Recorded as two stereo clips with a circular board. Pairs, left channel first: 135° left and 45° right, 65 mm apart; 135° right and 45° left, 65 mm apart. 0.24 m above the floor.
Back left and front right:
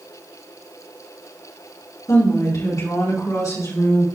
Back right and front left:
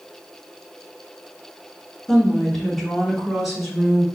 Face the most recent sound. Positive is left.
turn(degrees=130)